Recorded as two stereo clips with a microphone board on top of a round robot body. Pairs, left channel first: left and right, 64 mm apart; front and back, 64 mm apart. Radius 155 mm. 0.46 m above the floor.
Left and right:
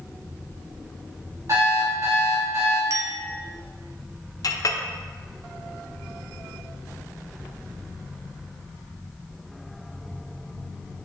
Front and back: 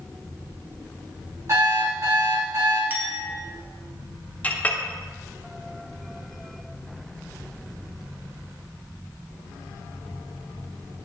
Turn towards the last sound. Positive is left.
turn(degrees=65)